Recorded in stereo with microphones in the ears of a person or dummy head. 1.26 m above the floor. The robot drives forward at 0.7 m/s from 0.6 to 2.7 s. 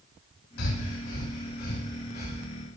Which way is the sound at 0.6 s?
65° left (ahead or behind).